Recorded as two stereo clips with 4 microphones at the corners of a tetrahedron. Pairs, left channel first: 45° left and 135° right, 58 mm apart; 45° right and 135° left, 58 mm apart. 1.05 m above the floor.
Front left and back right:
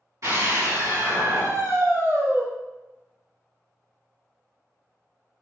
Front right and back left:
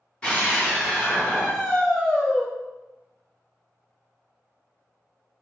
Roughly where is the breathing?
No breathing in this recording.